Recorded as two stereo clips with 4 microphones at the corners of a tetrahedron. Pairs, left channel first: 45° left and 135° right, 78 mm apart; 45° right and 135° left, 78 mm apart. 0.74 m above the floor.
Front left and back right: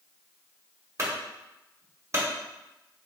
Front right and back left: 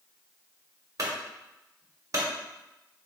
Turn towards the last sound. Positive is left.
turn(degrees=175)